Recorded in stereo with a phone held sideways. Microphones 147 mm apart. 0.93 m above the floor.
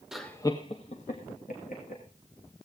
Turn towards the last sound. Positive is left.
turn(degrees=70)  # may be behind; listen again after turning